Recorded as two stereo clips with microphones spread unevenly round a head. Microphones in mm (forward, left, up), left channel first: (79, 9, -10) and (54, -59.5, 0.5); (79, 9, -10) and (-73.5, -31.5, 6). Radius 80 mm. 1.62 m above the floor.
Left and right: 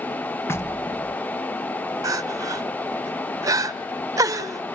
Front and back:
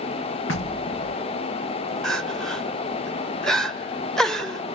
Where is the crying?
75° right, 1.1 m.